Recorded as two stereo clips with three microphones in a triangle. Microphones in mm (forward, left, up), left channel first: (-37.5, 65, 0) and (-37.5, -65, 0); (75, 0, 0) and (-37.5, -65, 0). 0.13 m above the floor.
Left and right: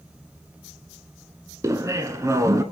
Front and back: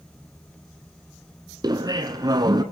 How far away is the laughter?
About 1.3 m.